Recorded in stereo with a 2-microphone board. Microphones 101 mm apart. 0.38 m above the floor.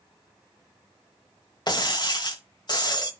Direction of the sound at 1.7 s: 45° left (ahead or behind).